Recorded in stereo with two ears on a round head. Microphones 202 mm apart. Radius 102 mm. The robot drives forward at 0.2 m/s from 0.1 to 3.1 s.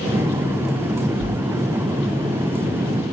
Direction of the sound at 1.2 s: 60° left (ahead or behind).